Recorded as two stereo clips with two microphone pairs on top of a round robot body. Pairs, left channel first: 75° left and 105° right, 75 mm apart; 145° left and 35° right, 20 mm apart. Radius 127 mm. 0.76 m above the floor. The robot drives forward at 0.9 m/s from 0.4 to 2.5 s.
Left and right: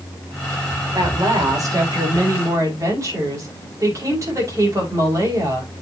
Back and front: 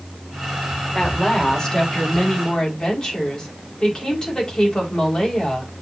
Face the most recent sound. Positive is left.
turn(degrees=-155)